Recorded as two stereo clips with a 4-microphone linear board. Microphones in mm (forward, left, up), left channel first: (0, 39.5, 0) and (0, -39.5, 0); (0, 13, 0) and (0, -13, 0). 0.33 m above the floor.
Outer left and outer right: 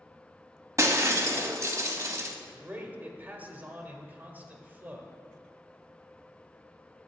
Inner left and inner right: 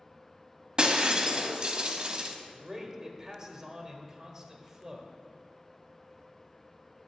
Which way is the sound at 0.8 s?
40° right (ahead or behind).